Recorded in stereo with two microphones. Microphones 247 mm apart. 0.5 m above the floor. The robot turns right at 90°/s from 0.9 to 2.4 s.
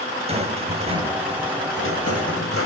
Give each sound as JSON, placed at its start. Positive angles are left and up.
{"t": 0.3, "sound": "a rattle", "azimuth_deg": -25, "distance_m": 3.0}